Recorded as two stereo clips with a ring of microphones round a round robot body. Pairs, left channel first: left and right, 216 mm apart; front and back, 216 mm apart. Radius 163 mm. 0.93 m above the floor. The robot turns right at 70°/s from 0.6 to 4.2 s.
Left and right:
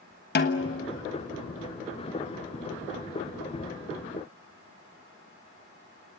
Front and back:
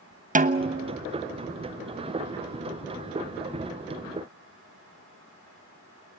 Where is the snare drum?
130° left, 1.2 m; by 1.0 s 155° left, 1.2 m.